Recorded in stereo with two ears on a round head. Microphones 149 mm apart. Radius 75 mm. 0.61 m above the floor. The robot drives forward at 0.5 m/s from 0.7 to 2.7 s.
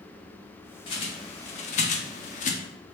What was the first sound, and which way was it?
A bird, 30° left (ahead or behind).